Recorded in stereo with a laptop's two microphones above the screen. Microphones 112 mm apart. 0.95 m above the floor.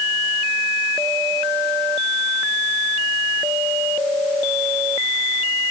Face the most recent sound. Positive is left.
No sound to turn to.